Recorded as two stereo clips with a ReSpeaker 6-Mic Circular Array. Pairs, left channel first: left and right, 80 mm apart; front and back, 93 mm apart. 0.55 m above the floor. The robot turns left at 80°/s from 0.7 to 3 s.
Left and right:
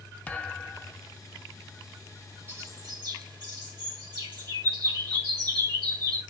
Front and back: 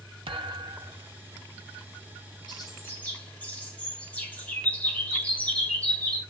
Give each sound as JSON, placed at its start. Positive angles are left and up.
{"t": 0.3, "sound": "a thud", "azimuth_deg": 160, "distance_m": 0.8}
{"t": 2.5, "sound": "a bird", "azimuth_deg": -30, "distance_m": 2.0}